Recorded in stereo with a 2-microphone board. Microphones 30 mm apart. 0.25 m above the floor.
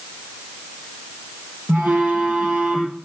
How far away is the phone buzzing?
About 4 m.